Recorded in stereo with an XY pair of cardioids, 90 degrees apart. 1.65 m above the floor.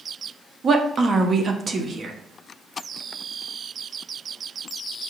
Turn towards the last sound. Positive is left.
turn(degrees=-45)